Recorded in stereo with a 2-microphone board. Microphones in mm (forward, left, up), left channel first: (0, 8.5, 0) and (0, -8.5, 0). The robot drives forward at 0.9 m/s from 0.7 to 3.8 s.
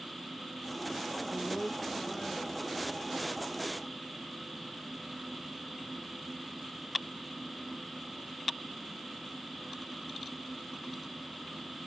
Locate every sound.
1.3 s a woman speaking: 40° right (ahead or behind), 0.6 m; by 3.0 s 10° right (ahead or behind), 2.0 m